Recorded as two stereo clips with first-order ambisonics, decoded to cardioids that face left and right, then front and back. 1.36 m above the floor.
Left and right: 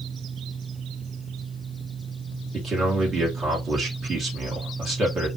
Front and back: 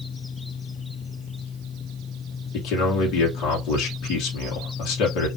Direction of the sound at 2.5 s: 30° right.